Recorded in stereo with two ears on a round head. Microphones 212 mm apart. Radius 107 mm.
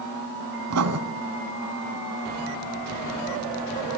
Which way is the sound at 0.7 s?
75° right (ahead or behind).